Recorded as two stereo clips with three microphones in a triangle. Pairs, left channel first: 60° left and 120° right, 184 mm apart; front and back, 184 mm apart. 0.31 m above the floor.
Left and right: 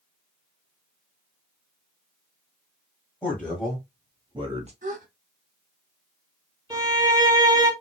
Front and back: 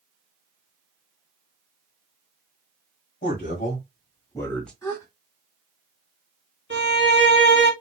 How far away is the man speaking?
About 1.6 m.